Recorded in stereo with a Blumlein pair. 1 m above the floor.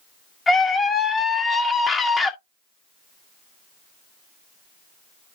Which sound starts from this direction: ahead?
A scream, at 0.5 s.